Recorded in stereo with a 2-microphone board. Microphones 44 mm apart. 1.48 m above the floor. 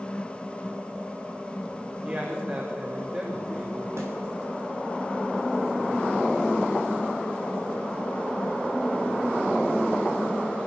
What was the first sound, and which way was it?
A man speaking, 45° right (ahead or behind).